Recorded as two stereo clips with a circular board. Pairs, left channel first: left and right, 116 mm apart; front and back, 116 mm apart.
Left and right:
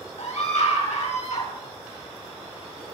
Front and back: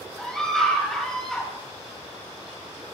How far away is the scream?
About 5 m.